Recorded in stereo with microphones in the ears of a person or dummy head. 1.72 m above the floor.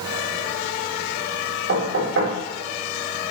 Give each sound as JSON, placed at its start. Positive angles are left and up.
{"t": 1.7, "sound": "knocking", "side_deg": -65, "distance_m": 3.5}